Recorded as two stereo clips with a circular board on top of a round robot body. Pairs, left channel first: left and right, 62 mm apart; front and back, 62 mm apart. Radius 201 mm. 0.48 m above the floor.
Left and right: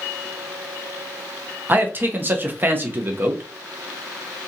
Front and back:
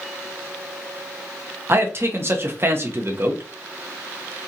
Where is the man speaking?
140° right, 1.1 m.